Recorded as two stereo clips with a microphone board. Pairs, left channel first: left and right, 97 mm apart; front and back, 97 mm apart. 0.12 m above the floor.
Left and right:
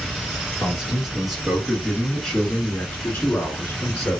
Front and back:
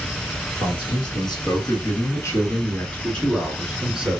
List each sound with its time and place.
0.6 s a man speaking: 5° right, 1.8 m; by 4.2 s 120° left, 1.3 m